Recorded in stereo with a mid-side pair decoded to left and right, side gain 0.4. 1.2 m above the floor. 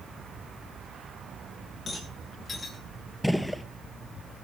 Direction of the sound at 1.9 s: 45° left.